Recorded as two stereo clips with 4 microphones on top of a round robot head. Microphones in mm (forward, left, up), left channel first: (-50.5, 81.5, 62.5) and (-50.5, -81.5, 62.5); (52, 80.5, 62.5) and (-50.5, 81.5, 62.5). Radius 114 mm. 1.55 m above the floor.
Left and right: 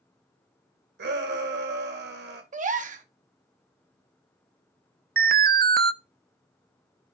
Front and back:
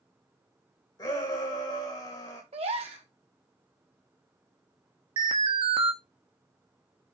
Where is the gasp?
130° right, 1.0 m.